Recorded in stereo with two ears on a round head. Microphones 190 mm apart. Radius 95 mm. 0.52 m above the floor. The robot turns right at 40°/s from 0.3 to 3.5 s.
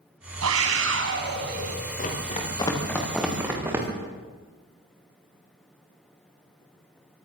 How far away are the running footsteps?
About 7 m.